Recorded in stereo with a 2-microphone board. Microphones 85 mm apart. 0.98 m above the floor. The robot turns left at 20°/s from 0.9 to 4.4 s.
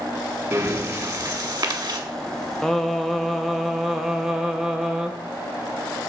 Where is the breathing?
40° right (ahead or behind), 1.2 m; by 2.0 s 60° right (ahead or behind), 1.2 m.